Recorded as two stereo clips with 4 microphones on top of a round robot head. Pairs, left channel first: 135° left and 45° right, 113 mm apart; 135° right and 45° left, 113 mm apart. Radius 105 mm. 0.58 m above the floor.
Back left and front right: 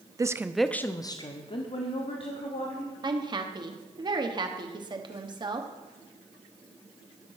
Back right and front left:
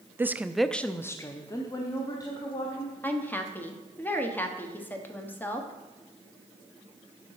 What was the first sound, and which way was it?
A woman speaking, 10° right.